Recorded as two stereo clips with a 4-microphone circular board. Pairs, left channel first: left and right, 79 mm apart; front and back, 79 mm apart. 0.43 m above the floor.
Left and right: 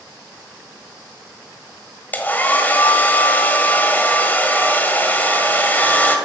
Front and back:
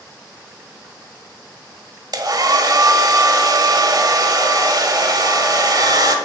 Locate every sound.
2.1 s a hair dryer: 155° left, 1.5 m